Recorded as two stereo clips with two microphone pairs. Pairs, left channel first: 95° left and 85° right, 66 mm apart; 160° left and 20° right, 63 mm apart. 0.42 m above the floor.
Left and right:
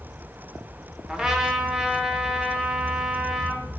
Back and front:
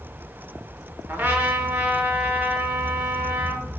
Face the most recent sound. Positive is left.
turn(degrees=-20)